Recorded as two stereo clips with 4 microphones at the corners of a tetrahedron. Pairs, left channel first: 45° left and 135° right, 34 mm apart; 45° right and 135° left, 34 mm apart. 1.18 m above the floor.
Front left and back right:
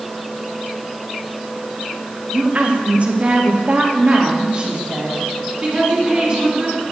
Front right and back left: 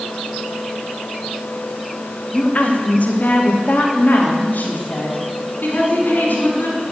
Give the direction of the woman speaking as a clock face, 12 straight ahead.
3 o'clock.